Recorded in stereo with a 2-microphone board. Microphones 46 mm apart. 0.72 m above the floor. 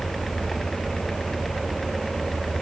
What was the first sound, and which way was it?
Only background noise.